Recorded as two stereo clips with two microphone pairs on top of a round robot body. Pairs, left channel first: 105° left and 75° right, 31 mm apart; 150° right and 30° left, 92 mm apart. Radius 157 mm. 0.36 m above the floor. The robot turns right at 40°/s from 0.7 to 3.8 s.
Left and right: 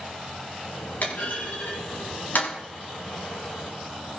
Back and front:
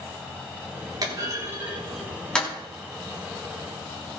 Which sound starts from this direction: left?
A clunk, at 1.0 s.